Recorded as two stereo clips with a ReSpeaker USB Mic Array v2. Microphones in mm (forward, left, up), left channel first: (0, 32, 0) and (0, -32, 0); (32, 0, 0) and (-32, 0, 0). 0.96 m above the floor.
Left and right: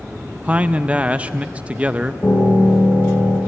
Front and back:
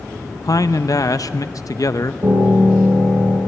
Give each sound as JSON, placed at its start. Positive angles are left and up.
{"t": 0.4, "sound": "a man speaking", "azimuth_deg": -20, "distance_m": 0.5}
{"t": 2.2, "sound": "a piano", "azimuth_deg": 170, "distance_m": 6.0}